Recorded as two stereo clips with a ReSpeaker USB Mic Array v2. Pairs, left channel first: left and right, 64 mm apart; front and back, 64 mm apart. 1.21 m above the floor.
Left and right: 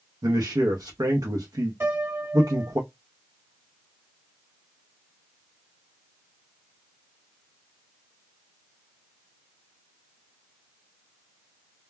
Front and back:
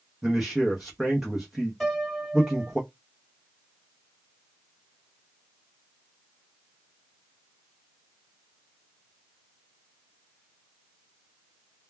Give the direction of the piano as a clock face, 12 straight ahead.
3 o'clock.